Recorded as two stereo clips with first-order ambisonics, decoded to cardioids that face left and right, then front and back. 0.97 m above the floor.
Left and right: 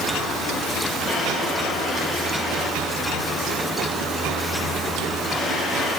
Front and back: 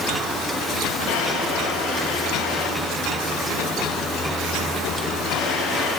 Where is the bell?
No bell in this recording.